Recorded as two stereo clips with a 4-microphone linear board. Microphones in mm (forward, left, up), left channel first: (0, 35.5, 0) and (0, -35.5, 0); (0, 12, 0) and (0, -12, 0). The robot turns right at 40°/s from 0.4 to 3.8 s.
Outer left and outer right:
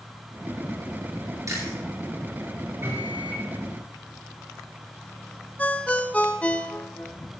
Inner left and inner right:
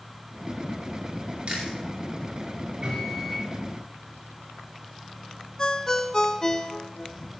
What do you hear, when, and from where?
1.5 s chewing: 50° right (ahead or behind), 7 m; by 1.8 s 40° right (ahead or behind), 7 m
2.8 s a microwave: 35° right (ahead or behind), 6 m; by 3.5 s 10° right (ahead or behind), 6 m
5.6 s a ringtone: 20° left (ahead or behind), 0.6 m